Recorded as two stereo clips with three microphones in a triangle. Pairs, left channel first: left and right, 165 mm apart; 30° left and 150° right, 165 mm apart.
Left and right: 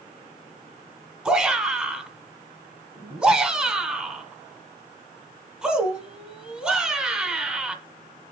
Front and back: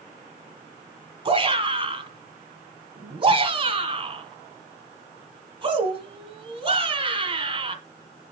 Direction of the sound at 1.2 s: 170° right.